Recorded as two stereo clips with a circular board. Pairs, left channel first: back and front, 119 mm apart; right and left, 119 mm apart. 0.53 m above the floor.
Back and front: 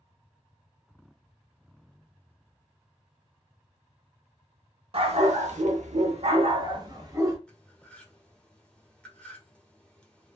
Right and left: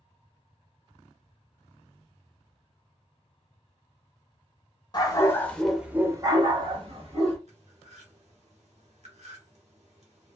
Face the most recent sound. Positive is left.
turn(degrees=100)